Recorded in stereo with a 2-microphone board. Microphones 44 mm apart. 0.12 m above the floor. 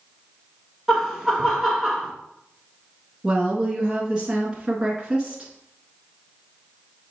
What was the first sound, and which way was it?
Laughter, 10° right (ahead or behind).